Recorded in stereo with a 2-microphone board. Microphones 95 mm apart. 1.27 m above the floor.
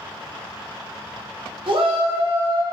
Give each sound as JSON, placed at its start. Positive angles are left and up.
{"t": 1.7, "sound": "a shout", "side_deg": -65, "distance_m": 1.1}